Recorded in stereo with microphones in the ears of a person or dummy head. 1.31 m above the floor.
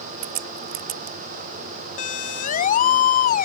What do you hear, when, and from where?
0.2 s a crack: 55° right (ahead or behind)
2.0 s a siren: 40° left (ahead or behind); by 3.5 s 45° left (ahead or behind)